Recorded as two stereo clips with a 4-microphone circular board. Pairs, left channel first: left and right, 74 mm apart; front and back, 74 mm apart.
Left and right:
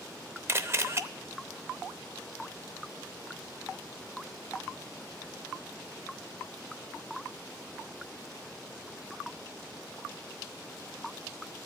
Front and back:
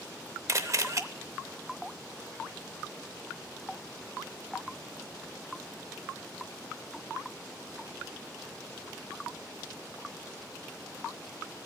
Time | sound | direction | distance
0.5 | a camera shutter | 140° right | 0.6 m